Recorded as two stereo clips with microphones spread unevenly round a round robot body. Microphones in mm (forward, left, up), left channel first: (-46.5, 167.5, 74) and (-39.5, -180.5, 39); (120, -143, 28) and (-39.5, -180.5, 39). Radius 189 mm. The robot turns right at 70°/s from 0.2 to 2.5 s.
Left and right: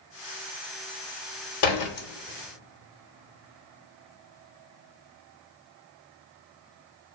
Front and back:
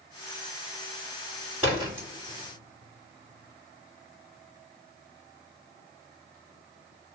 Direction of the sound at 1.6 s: 105° left.